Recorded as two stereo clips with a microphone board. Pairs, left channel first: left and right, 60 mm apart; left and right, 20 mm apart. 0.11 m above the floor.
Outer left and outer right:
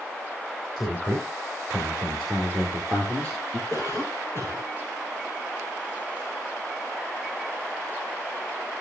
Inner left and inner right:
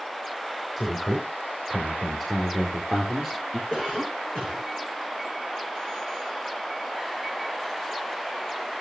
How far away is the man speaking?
About 4.5 m.